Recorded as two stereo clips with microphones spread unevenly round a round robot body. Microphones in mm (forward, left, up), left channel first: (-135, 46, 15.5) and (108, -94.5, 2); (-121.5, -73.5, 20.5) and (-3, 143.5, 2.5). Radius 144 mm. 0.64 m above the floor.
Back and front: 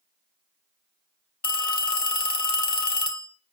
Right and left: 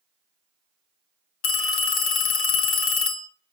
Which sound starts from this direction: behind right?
A phone ringing, at 1.4 s.